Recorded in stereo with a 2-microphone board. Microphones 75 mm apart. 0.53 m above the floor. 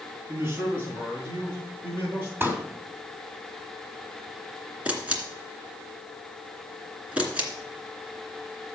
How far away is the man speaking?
About 5 m.